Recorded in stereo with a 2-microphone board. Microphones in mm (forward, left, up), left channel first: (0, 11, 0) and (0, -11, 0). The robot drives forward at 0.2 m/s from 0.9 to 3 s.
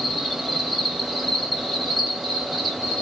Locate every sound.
0.0 s an insect: centre (ahead or behind), 1.6 m